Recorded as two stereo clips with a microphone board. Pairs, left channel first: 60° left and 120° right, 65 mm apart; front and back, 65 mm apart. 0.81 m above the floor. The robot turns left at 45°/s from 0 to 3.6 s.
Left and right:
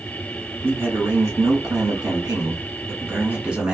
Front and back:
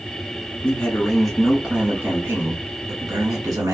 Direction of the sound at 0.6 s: 60° right.